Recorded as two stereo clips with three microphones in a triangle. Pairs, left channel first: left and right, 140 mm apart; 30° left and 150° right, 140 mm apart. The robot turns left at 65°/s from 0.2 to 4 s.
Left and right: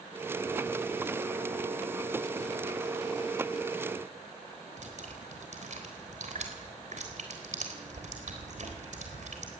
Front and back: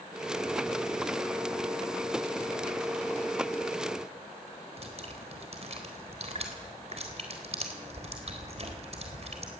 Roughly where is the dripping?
Behind right.